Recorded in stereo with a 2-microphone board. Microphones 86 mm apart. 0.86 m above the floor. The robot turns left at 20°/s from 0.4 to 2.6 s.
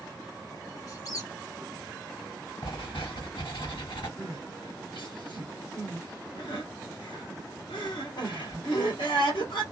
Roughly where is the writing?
Left.